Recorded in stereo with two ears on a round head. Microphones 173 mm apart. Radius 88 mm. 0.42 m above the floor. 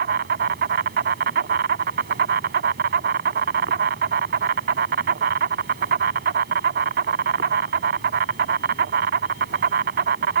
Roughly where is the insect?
Right.